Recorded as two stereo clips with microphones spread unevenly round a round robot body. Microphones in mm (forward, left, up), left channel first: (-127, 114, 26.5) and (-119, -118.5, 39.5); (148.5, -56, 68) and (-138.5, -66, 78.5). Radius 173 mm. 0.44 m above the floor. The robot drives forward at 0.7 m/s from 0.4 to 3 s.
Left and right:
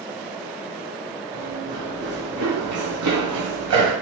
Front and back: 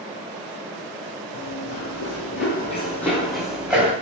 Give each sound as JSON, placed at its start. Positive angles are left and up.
{"t": 1.3, "sound": "running footsteps", "azimuth_deg": -10, "distance_m": 1.7}